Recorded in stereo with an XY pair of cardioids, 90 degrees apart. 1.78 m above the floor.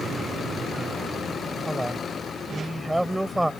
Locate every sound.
1.7 s a man speaking: 10° right